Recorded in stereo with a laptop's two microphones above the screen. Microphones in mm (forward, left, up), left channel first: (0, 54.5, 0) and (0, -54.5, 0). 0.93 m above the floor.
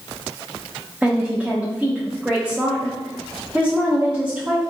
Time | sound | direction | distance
1.0 | a woman speaking | 10° right (ahead or behind) | 0.7 m